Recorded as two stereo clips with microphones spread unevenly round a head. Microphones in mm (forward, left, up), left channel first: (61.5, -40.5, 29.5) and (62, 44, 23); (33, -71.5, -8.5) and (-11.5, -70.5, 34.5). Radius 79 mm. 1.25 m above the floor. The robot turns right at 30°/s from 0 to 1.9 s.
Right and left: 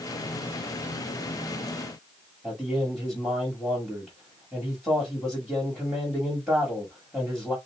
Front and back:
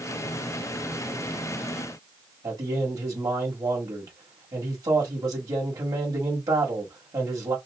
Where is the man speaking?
Straight behind, 1.7 m.